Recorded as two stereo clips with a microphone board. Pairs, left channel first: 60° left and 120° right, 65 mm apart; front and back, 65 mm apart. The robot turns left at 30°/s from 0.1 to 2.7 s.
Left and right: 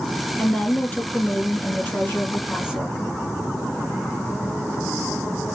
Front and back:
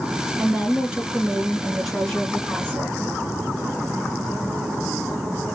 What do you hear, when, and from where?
0.4 s a woman speaking: 130° left, 1.5 m; by 3.0 s 60° left, 1.5 m